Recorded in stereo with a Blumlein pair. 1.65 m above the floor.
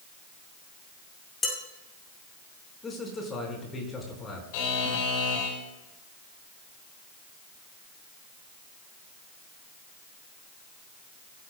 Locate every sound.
1.4 s dishes clattering: 15° left, 7.5 m
2.8 s a man speaking: 15° left, 5 m
4.5 s a buzzer: 45° left, 4.5 m